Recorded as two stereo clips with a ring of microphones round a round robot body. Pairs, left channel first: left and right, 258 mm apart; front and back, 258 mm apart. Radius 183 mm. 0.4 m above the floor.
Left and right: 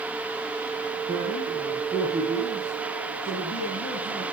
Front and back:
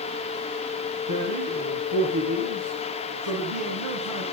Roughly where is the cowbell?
I don't hear a cowbell.